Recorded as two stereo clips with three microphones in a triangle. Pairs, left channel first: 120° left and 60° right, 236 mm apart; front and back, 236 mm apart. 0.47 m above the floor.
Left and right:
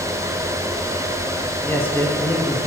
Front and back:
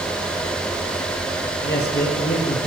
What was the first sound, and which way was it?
A man speaking, 40° left.